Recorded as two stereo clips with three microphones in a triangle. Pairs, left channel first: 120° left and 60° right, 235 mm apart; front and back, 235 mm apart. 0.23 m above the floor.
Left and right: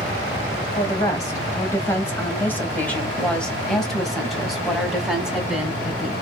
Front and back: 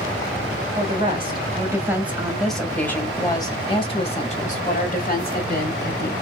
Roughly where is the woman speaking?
Behind.